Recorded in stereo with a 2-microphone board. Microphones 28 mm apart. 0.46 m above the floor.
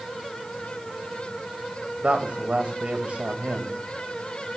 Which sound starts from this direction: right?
A woman speaking, at 2.0 s.